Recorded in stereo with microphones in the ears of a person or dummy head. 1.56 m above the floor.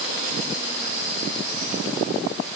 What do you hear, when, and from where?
Only background noise.